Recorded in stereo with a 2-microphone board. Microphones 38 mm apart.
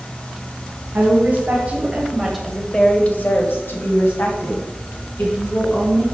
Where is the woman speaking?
40° right (ahead or behind), 3 m; by 6.0 s 70° left (ahead or behind), 5.5 m.